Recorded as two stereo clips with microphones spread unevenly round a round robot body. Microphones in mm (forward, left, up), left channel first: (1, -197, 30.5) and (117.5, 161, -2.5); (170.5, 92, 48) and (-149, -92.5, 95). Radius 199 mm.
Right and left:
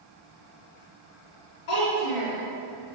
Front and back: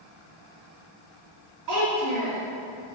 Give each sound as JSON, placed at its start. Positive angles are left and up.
{"t": 1.7, "sound": "a child speaking", "azimuth_deg": -120, "distance_m": 2.5}